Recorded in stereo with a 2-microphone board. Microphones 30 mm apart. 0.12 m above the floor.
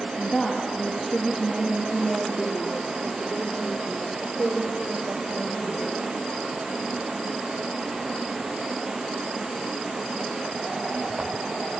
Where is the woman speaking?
25° left (ahead or behind), 3 m; by 5.9 s 70° right (ahead or behind), 6 m.